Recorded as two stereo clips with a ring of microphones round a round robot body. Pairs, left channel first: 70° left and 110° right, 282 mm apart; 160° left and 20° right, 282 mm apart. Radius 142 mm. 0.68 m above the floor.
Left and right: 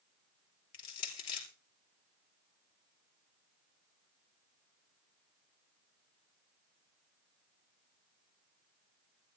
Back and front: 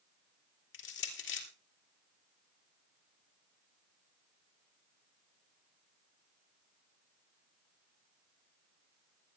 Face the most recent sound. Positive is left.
turn(degrees=105)